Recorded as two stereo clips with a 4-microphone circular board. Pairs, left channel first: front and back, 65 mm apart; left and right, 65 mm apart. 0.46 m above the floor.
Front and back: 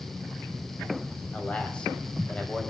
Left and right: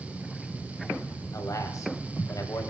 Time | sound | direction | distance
1.3 | a man speaking | 70° left | 2.5 m